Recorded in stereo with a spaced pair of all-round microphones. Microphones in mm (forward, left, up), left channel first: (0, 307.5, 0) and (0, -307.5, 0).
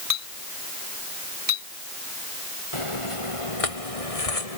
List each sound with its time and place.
0.1 s a clink: 70° right (ahead or behind)
2.7 s footsteps: 55° left (ahead or behind); by 4.6 s 70° left (ahead or behind)